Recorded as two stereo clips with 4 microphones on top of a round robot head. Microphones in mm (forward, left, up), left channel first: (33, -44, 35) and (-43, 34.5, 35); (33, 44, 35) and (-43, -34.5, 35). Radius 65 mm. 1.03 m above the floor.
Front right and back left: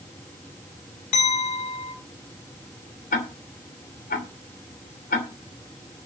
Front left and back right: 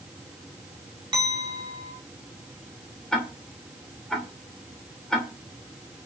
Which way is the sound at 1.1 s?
80° right.